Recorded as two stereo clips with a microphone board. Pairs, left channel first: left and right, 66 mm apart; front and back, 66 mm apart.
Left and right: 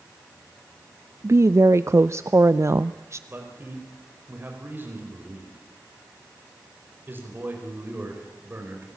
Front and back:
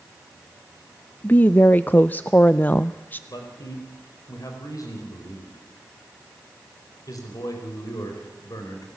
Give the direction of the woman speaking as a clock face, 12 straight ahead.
2 o'clock.